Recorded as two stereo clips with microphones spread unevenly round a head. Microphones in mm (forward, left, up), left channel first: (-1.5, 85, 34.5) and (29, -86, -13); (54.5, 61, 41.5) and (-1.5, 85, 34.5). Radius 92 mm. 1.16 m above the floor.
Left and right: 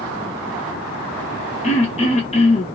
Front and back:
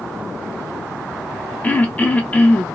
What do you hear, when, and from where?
1.6 s throat clearing: 45° left, 0.7 m